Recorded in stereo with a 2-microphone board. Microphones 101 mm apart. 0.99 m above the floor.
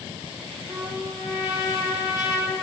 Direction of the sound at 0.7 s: 25° right (ahead or behind).